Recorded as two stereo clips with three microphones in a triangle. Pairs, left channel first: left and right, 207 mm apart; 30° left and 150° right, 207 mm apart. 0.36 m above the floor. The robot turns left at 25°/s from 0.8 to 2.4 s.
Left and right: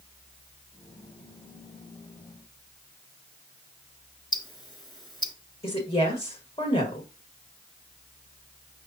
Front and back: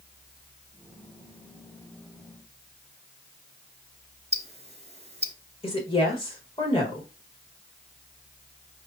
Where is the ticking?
160° left, 1.2 m.